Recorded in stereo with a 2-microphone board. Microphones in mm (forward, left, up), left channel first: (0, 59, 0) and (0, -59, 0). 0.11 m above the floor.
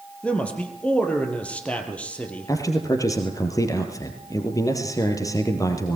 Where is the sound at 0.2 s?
10° left (ahead or behind), 3 m.